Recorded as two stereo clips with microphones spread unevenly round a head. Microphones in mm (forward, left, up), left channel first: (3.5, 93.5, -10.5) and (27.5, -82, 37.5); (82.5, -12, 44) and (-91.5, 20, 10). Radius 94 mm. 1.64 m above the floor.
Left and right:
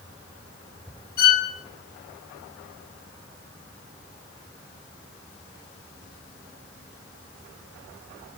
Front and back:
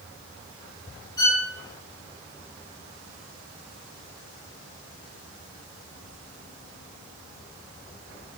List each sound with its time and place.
1.2 s a violin: 60° left, 4 m